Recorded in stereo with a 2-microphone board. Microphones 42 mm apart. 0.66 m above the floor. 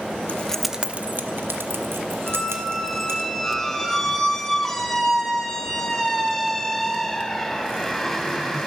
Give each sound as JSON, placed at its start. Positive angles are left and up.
{"t": 0.3, "sound": "keys jangling", "side_deg": 35, "distance_m": 0.8}
{"t": 2.3, "sound": "a squeak", "side_deg": 5, "distance_m": 1.8}